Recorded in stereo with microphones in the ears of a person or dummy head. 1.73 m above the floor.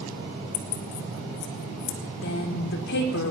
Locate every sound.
0.5 s keys jangling: 25° left (ahead or behind), 0.7 m; by 2.0 s 65° left (ahead or behind), 1.5 m
2.2 s a woman speaking: 65° left (ahead or behind), 1.7 m